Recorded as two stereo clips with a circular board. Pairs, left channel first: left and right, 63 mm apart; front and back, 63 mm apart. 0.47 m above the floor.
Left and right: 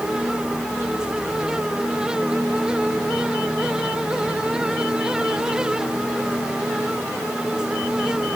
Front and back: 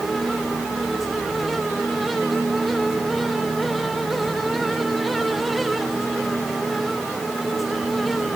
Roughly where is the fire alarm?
No fire alarm in this recording.